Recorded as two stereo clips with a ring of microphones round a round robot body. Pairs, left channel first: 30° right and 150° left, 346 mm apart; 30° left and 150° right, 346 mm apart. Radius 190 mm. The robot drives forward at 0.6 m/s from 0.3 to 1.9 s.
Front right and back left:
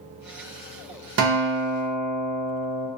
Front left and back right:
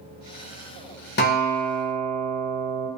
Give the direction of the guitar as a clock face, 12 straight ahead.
9 o'clock.